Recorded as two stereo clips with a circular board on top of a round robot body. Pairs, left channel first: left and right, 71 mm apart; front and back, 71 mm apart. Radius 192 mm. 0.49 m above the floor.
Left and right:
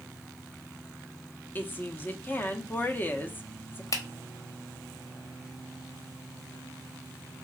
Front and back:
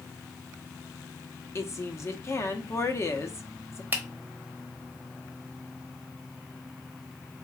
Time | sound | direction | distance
1.6 | a woman speaking | 35° left | 1.1 m
3.9 | a finger snap | 115° left | 1.3 m